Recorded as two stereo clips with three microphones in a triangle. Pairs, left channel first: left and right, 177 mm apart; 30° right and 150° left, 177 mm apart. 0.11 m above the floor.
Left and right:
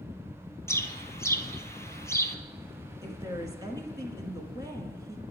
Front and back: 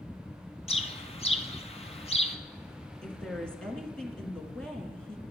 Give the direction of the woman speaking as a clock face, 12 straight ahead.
4 o'clock.